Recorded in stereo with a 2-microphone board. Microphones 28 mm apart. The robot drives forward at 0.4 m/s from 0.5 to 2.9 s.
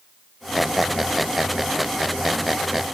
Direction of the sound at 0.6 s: 5° right (ahead or behind).